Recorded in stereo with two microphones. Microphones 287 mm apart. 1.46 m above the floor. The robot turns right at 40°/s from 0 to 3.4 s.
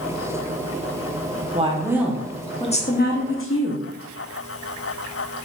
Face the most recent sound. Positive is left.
turn(degrees=50)